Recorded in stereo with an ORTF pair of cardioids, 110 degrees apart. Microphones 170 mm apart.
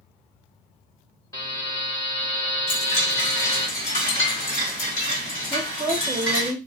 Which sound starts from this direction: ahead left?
A chime, at 2.7 s.